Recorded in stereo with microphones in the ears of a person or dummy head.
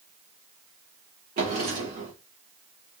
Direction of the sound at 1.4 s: 40° right (ahead or behind).